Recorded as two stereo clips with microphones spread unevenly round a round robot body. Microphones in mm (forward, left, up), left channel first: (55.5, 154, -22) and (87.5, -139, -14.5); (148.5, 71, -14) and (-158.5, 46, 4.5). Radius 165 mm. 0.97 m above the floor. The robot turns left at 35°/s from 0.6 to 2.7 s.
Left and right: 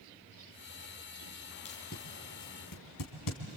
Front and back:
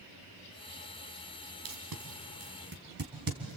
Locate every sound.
1.6 s tape being pulled: 170° left, 3 m; by 3.6 s 130° left, 3 m